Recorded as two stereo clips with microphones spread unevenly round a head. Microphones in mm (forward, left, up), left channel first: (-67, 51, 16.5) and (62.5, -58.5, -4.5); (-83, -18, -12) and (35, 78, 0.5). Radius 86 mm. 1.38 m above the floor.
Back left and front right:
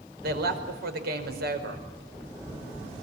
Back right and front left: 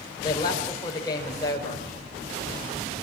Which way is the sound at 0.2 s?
70° right.